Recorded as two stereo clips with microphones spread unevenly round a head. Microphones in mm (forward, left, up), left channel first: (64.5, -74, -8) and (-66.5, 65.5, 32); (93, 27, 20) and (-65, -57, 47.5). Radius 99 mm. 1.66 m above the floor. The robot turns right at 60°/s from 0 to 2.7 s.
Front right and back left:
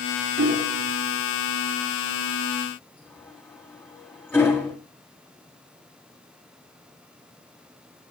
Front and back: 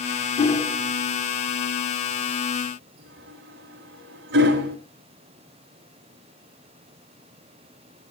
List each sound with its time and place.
0.4 s hammering: 90° left, 6 m; by 4.8 s 130° right, 6 m